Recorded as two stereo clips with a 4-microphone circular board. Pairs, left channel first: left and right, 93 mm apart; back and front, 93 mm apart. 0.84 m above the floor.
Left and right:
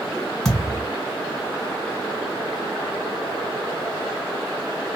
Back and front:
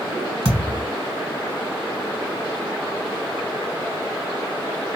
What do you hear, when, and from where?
0.5 s a thud: 5° left, 1.5 m